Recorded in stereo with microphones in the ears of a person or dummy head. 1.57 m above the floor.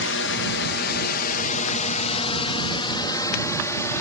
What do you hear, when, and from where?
0.0 s a drone: 65° left (ahead or behind); by 4.0 s 10° left (ahead or behind)